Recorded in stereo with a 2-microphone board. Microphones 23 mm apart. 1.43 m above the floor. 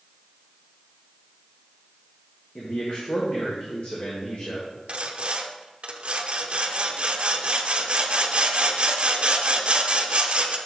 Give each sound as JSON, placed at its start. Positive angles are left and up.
{"t": 2.5, "sound": "a man speaking", "side_deg": 55, "distance_m": 1.5}
{"t": 4.9, "sound": "sawing", "side_deg": -45, "distance_m": 0.7}